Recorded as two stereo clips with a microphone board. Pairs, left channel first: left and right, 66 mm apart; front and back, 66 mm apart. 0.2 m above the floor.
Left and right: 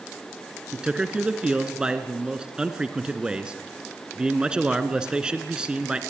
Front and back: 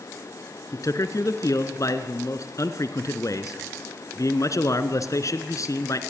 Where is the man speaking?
15° right, 1.9 m.